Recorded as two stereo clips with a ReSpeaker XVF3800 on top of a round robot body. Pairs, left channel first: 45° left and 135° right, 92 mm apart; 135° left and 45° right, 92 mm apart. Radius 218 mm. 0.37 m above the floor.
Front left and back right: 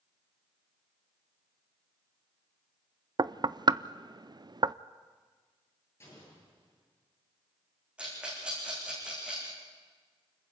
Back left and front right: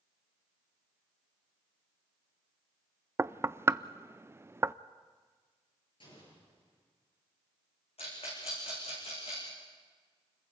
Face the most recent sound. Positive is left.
turn(degrees=145)